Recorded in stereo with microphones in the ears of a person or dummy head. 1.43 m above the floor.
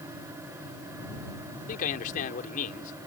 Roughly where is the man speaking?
Left.